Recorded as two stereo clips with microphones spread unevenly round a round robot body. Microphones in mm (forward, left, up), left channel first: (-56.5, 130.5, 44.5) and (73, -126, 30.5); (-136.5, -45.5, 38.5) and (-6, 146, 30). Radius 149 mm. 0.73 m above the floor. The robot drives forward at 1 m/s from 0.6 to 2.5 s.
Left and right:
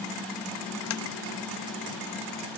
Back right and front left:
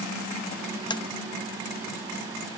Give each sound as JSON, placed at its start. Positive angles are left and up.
{"t": 0.9, "sound": "tapping", "azimuth_deg": 160, "distance_m": 0.7}